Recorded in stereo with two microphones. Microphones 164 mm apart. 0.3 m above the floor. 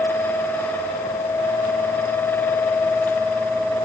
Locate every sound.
Only background noise.